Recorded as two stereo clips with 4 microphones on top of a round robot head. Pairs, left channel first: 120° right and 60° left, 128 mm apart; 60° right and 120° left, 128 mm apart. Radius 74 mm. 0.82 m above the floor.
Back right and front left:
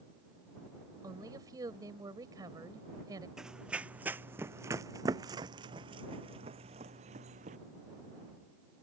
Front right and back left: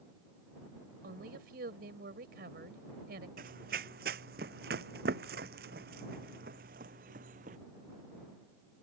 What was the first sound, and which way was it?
A woman speaking, 120° left.